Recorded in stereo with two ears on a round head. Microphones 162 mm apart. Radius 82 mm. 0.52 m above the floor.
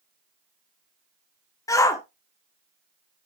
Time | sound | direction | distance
1.7 | a shout | 15° left (ahead or behind) | 1.0 m